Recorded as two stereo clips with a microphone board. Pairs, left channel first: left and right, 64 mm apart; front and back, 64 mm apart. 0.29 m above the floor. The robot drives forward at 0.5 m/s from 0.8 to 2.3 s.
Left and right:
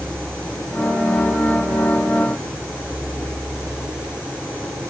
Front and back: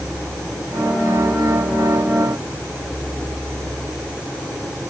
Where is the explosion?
No explosion in this recording.